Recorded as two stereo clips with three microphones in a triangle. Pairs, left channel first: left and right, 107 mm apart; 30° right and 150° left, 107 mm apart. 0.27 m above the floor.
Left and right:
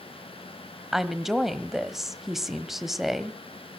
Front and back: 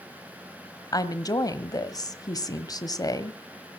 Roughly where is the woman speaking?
Ahead.